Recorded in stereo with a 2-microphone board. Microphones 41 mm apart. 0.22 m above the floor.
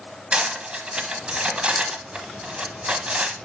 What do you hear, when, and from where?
0.3 s cutlery clinking: 30° right (ahead or behind), 0.9 m